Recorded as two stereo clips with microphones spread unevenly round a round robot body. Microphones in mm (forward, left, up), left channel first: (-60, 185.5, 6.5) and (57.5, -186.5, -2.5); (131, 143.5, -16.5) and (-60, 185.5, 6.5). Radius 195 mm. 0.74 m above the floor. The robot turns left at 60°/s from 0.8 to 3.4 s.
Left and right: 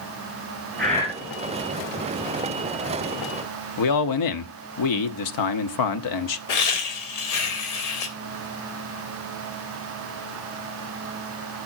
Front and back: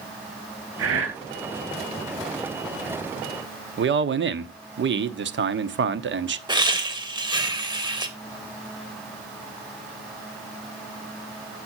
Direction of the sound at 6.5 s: 100° left.